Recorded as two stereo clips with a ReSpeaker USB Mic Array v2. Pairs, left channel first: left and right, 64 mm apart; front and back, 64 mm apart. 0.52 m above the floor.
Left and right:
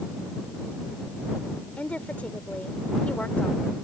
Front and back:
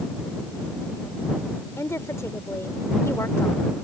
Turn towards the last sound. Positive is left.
turn(degrees=25)